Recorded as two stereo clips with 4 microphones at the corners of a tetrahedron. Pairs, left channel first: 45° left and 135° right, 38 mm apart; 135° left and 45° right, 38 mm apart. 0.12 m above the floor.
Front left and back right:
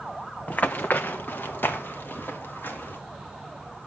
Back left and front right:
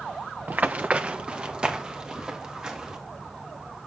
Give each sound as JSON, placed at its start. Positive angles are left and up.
{"t": 0.5, "sound": "running footsteps", "azimuth_deg": 0, "distance_m": 0.6}